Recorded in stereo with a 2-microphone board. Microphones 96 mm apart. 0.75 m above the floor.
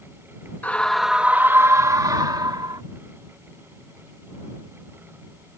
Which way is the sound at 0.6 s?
20° left (ahead or behind).